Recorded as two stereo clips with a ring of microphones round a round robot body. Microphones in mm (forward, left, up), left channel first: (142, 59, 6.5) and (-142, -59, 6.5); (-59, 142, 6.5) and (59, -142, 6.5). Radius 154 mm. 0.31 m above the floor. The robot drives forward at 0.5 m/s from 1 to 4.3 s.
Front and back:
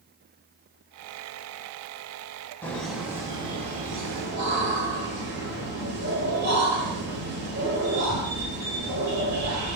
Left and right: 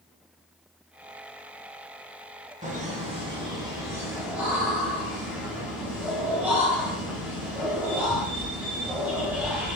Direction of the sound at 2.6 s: 50° right.